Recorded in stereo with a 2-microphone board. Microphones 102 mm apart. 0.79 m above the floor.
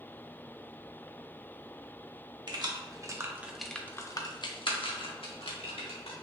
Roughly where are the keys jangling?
Right.